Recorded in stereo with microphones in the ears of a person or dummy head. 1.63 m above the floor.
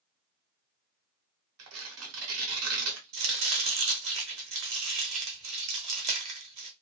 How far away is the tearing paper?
About 0.9 m.